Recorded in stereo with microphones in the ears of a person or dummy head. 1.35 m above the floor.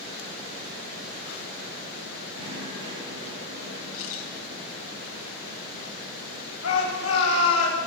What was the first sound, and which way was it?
Knocking, 50° right (ahead or behind).